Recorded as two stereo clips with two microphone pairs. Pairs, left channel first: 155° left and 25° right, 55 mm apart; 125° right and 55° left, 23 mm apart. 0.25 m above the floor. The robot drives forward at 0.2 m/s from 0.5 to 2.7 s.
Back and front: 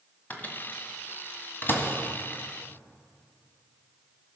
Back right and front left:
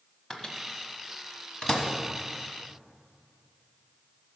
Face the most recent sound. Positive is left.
turn(degrees=-170)